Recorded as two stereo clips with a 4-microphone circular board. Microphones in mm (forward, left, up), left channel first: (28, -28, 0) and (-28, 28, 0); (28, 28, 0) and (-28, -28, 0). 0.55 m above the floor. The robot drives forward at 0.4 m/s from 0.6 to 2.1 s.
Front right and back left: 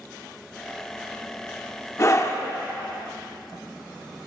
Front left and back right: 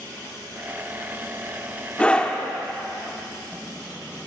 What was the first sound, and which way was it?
A scream, 20° right.